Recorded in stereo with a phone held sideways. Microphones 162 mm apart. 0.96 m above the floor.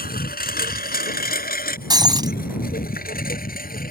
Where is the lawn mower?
60° left (ahead or behind).